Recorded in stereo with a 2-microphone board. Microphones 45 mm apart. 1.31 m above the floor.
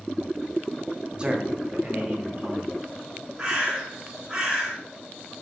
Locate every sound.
1.2 s a man speaking: 20° right (ahead or behind), 0.6 m; by 2.7 s 45° right (ahead or behind), 1.5 m
3.4 s a bird: 20° right (ahead or behind), 1.2 m